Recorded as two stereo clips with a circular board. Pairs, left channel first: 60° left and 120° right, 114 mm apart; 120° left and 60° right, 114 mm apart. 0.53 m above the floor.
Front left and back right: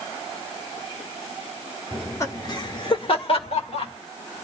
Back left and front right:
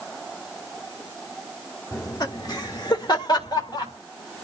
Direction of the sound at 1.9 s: 120° left.